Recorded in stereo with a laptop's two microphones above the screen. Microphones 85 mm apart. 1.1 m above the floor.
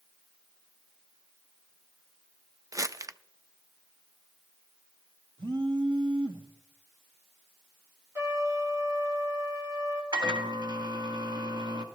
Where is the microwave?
70° right (ahead or behind), 1.5 m.